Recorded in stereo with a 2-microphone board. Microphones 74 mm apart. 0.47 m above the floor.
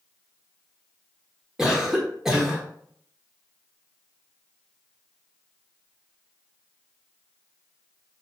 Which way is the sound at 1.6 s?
10° right (ahead or behind).